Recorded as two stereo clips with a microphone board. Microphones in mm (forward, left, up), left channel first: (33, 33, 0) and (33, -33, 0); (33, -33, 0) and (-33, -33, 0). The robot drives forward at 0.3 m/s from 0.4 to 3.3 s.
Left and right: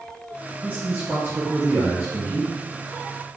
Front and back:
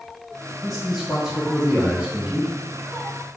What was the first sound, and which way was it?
A man speaking, 85° right.